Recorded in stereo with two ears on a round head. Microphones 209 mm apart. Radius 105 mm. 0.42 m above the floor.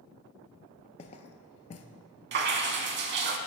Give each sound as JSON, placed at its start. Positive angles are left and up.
{"t": 1.0, "sound": "footsteps", "side_deg": 30, "distance_m": 0.5}
{"t": 2.3, "sound": "dripping", "side_deg": -45, "distance_m": 0.6}